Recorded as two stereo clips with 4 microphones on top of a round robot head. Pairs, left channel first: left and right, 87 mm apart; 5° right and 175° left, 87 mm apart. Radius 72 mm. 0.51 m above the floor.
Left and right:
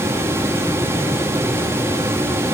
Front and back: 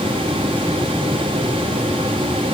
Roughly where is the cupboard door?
I don't hear a cupboard door.